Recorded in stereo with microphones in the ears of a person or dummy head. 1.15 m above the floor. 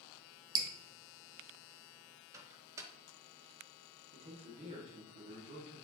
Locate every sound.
0.6 s dripping: 20° right (ahead or behind), 0.5 m
2.3 s a microwave: 15° right (ahead or behind), 0.7 m
4.1 s a man speaking: 35° right (ahead or behind), 1.7 m